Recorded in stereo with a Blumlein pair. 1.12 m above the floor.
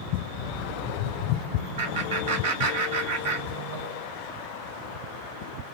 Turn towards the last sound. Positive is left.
turn(degrees=-60)